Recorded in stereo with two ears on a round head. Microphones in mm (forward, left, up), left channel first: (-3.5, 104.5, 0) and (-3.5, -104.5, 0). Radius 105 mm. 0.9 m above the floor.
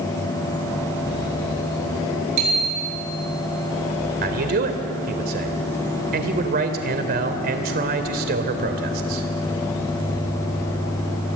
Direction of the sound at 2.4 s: 85° right.